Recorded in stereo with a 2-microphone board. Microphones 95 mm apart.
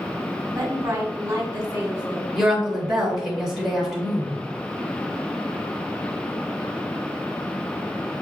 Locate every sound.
0.6 s a woman speaking: 35° right (ahead or behind), 1.5 m
2.4 s a woman speaking: 5° right (ahead or behind), 1.1 m